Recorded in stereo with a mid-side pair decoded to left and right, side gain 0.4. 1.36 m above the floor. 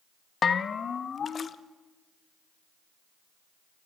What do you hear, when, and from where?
0.4 s a bell: 50° left, 1.2 m